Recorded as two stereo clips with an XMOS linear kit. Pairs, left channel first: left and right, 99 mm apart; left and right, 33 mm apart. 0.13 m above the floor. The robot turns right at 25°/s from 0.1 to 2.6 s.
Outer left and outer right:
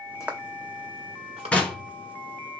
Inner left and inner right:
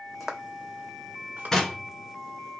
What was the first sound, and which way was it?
Footsteps, 5° right (ahead or behind).